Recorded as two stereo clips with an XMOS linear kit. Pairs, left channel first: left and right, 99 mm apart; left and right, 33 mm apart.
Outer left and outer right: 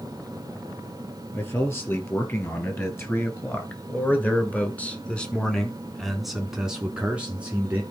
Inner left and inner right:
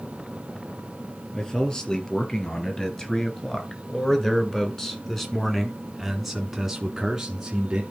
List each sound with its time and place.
1.3 s a man speaking: 25° left (ahead or behind), 3 m; by 7.8 s 15° right (ahead or behind), 1.9 m